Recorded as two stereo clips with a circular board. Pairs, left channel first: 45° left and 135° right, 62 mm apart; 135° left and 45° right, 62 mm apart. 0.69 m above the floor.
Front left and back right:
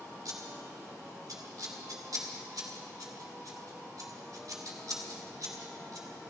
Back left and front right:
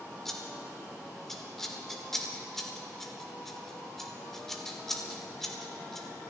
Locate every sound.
0.2 s scissors: 140° right, 1.9 m